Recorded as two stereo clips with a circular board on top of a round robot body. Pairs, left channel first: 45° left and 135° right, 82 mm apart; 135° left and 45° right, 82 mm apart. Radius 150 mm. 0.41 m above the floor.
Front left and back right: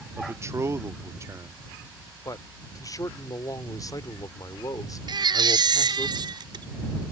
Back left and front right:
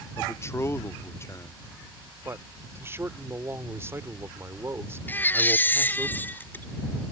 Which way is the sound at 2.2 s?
10° left.